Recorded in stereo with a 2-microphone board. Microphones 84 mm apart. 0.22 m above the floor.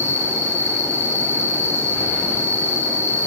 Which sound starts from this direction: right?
An insect, at 0.0 s.